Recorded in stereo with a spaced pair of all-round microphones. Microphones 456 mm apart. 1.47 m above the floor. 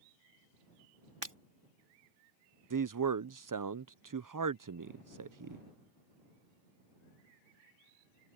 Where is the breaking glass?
65° right (ahead or behind).